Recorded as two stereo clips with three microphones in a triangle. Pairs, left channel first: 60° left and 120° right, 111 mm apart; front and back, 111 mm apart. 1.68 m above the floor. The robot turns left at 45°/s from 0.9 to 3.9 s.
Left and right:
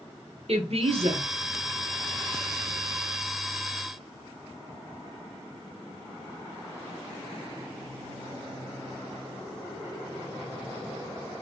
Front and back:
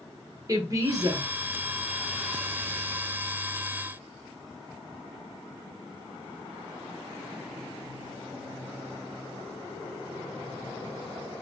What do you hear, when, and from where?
0.5 s a woman speaking: 125° right, 1.0 m; by 1.3 s 145° right, 1.0 m